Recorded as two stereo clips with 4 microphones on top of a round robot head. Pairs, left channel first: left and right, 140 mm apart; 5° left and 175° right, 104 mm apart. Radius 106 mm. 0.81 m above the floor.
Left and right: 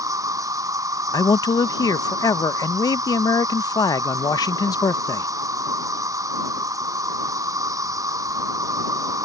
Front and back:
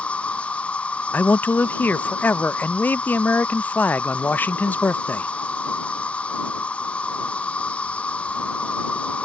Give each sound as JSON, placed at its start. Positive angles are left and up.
{"t": 0.0, "sound": "an insect", "azimuth_deg": -65}
{"t": 1.1, "sound": "a man speaking", "azimuth_deg": 60}